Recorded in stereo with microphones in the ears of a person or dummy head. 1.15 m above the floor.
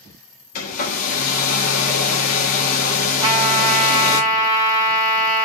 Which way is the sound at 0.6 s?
45° left (ahead or behind).